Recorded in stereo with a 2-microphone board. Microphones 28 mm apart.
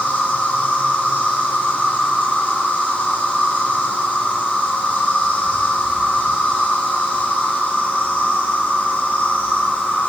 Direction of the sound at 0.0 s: 75° left (ahead or behind).